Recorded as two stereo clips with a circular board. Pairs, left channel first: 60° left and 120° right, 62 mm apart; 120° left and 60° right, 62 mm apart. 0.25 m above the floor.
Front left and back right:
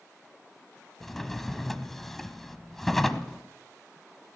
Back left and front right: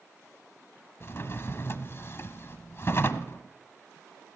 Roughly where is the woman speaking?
I don't hear a woman speaking.